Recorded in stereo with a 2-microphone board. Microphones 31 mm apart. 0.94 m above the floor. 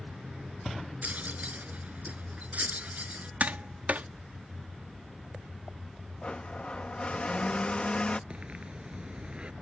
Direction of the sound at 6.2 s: 35° left (ahead or behind).